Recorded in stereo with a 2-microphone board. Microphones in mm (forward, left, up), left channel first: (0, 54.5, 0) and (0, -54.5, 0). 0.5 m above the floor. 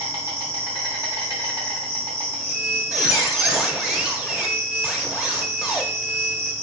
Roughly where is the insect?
Right.